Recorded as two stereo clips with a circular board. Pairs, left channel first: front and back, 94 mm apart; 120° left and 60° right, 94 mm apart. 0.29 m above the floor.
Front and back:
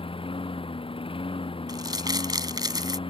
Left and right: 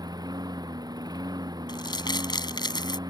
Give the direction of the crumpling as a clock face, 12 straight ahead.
7 o'clock.